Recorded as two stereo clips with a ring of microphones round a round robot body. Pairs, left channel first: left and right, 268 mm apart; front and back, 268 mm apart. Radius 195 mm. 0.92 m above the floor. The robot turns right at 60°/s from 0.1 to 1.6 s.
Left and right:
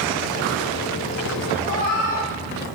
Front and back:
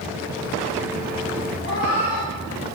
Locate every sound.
1.6 s a cat meowing: 30° left, 4 m